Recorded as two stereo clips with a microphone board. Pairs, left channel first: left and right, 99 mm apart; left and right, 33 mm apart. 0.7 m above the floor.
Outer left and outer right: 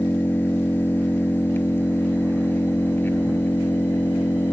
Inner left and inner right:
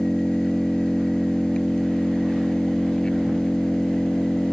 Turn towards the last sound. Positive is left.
turn(degrees=20)  # may be behind; listen again after turning